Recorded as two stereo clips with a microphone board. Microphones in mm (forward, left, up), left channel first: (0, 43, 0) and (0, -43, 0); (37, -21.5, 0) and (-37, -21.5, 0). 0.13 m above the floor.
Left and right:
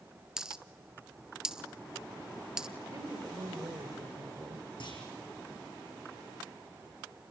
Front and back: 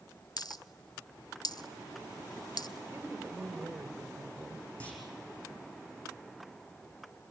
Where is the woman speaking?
125° right, 2.5 m.